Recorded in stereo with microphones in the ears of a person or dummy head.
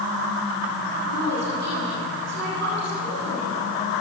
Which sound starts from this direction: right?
A woman speaking, at 0.9 s.